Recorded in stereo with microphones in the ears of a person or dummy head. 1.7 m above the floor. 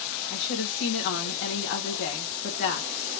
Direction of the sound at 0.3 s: 55° left (ahead or behind).